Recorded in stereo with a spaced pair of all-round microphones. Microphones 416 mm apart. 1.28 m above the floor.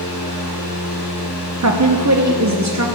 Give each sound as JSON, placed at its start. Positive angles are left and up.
{"t": 0.0, "sound": "a fan", "side_deg": 55, "distance_m": 3.5}
{"t": 1.6, "sound": "a woman speaking", "side_deg": -40, "distance_m": 0.8}